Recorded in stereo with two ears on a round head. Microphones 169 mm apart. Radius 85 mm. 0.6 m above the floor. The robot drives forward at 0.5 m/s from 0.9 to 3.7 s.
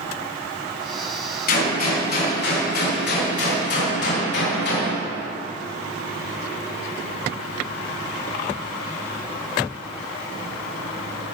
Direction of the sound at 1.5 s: 50° left (ahead or behind).